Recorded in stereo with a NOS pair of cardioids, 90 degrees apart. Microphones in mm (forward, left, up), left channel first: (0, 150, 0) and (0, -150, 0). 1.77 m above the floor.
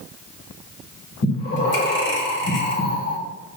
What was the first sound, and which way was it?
Breathing, 40° left.